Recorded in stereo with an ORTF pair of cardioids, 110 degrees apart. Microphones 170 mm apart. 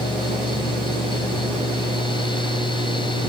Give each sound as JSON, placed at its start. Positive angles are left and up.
{"t": 0.0, "sound": "a fan", "azimuth_deg": 30}